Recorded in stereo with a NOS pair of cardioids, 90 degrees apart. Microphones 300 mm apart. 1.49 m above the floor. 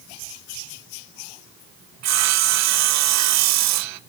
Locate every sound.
2.0 s sawing: 70° right, 0.6 m